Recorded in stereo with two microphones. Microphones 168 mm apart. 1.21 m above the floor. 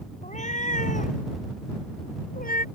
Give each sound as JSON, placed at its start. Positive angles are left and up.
{"t": 0.2, "sound": "a cat meowing", "side_deg": 45}